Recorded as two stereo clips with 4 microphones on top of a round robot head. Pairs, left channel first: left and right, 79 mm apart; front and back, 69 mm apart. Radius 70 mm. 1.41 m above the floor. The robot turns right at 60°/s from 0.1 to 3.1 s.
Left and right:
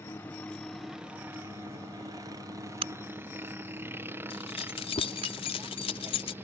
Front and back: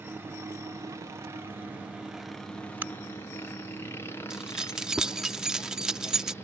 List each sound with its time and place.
0.0 s a helicopter: 135° left; by 6.4 s 40° right
2.8 s a crack: 110° right; by 5.3 s 90° right
4.3 s keys jangling: 100° left